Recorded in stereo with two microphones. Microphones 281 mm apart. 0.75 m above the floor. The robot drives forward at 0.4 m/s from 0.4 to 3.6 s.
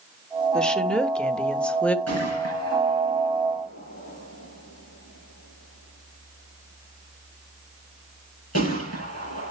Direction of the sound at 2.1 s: 65° left (ahead or behind).